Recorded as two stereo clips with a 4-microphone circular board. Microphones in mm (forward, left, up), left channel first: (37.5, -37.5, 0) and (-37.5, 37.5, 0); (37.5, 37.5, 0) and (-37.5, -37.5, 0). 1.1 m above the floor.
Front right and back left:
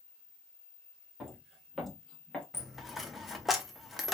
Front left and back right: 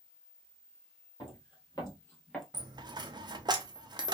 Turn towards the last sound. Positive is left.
turn(degrees=-135)